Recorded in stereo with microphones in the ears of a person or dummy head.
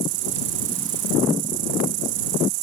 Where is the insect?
70° right (ahead or behind).